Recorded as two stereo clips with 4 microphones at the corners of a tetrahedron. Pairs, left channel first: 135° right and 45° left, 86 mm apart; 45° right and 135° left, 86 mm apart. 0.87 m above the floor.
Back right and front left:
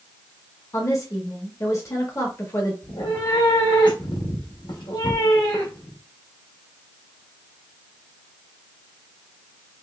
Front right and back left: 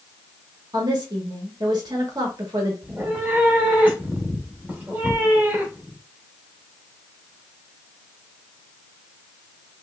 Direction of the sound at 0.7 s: 175° left.